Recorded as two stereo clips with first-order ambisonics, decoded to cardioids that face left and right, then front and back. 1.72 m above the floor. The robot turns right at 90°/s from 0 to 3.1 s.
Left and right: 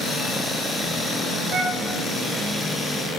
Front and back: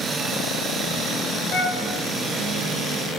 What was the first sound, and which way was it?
A flute, 50° right.